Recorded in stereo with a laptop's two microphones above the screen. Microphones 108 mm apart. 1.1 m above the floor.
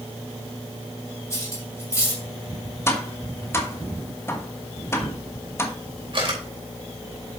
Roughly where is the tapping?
Left.